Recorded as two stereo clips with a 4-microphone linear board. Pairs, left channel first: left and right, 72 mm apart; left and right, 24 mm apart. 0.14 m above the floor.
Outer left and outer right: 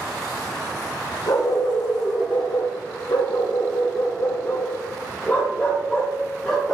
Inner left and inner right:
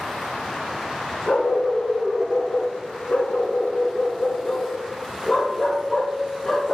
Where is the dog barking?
75° left (ahead or behind), 2.0 m; by 6.7 s 5° left (ahead or behind), 1.9 m.